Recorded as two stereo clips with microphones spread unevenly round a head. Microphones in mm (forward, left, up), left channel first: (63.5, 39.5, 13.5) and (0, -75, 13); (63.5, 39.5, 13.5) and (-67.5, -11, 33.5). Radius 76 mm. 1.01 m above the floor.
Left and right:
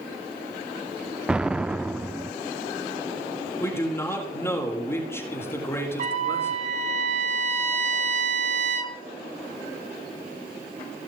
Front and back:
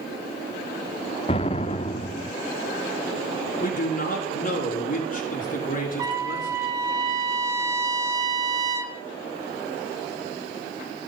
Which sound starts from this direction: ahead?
A man speaking, at 3.6 s.